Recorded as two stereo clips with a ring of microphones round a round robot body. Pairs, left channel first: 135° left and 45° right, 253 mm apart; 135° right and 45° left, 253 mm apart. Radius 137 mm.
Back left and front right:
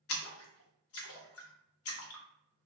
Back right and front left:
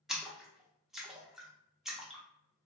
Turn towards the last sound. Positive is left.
turn(degrees=135)